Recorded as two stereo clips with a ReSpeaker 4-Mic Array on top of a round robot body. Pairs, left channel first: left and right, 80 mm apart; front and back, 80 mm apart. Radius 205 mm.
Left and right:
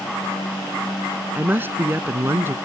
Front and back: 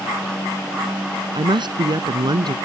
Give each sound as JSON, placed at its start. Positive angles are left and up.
{"t": 1.4, "sound": "a woman speaking", "azimuth_deg": -155}